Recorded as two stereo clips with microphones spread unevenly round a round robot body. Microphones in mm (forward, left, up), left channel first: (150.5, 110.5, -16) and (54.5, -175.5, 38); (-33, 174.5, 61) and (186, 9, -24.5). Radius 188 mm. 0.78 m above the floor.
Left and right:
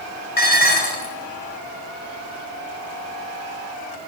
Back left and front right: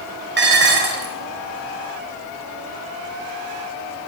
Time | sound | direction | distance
0.4 | dishes clattering | 10° left | 3 m